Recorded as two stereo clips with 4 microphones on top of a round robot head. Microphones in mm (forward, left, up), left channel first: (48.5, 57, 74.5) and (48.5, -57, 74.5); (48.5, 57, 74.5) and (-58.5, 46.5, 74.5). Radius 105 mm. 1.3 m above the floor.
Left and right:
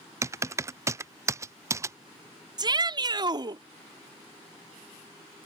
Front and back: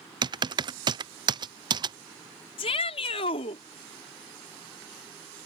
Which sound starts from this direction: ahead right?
A shout, at 2.6 s.